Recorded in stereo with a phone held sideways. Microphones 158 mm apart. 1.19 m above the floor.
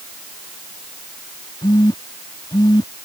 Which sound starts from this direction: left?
A phone buzzing, at 1.6 s.